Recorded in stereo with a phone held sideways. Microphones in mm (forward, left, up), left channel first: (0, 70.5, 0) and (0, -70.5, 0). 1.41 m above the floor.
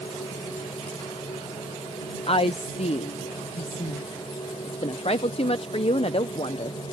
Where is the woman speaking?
45° left (ahead or behind).